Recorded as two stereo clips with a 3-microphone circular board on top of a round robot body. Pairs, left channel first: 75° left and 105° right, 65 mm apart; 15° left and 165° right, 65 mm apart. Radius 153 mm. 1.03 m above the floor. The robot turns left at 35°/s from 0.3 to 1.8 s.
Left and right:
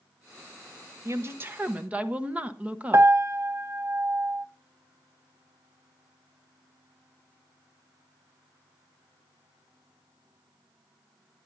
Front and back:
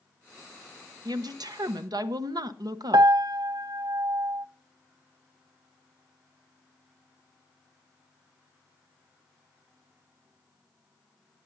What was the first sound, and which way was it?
A woman speaking, 150° right.